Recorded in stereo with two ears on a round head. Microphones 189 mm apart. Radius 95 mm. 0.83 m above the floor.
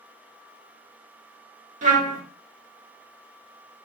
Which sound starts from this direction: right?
A trumpet, at 1.8 s.